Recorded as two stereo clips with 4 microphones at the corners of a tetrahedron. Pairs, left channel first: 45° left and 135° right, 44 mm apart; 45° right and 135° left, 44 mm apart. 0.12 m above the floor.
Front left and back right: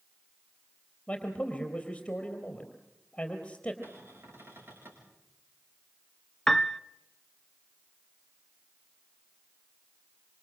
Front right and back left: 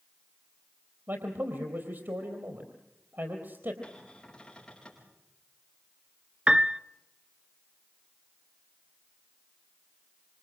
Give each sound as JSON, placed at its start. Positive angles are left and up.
{"t": 1.1, "sound": "a man speaking", "azimuth_deg": 115, "distance_m": 3.5}
{"t": 3.8, "sound": "a cupboard door", "azimuth_deg": -115, "distance_m": 8.0}
{"t": 6.5, "sound": "a piano", "azimuth_deg": 110, "distance_m": 0.5}